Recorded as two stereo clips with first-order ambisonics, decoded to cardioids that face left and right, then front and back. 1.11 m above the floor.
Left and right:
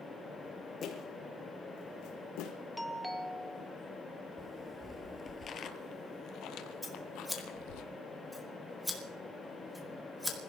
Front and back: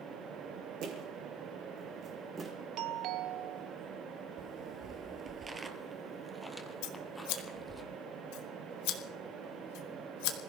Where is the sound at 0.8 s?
145° left, 3.5 m; by 2.5 s 105° left, 4 m.